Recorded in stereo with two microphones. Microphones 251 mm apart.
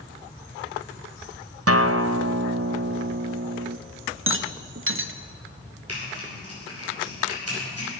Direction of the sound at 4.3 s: 55° right (ahead or behind).